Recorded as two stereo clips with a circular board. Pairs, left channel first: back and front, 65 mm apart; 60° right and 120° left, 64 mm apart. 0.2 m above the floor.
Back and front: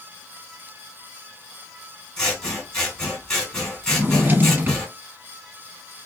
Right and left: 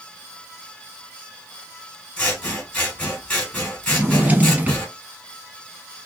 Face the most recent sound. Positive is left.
turn(degrees=55)